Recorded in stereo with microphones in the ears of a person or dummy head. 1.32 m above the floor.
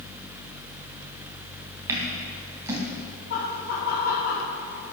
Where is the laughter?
70° left (ahead or behind), 3 m.